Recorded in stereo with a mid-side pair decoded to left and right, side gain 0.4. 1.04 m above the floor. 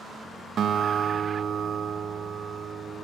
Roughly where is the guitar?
Ahead right.